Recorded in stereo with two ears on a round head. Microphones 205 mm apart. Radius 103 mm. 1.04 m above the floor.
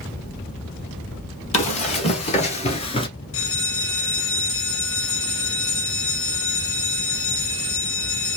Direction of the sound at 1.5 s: 30° left (ahead or behind).